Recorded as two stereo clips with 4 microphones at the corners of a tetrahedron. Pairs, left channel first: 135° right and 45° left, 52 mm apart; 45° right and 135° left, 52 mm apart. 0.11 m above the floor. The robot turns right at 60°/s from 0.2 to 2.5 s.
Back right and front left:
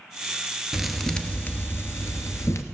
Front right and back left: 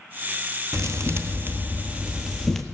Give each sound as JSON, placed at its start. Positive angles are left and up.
{"t": 0.7, "sound": "a thud", "azimuth_deg": 125, "distance_m": 1.0}